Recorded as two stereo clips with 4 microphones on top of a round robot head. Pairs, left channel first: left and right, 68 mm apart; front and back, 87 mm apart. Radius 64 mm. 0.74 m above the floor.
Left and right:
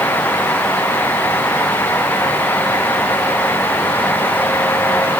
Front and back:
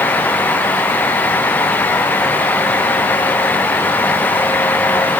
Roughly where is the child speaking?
I don't hear a child speaking.